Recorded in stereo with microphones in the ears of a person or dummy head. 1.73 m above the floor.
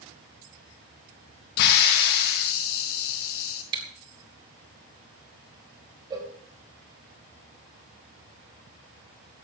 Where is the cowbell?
25° right (ahead or behind), 3 m.